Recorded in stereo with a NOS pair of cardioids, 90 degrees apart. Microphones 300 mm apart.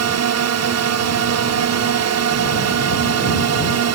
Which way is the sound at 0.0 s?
60° right.